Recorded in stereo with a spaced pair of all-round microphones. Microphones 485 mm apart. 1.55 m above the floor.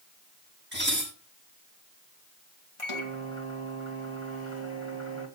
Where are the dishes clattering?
25° right (ahead or behind), 9 m.